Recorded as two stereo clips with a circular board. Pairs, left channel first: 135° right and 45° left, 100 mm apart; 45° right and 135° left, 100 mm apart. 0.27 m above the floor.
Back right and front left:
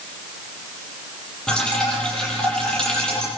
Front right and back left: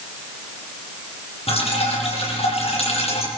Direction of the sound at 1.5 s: 55° right.